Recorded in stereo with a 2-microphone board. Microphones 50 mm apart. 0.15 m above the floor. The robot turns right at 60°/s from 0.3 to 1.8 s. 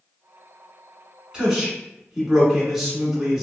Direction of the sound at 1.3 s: 15° right (ahead or behind).